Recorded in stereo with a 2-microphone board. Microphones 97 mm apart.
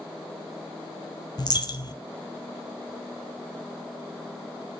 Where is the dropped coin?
45° left (ahead or behind), 1.0 m.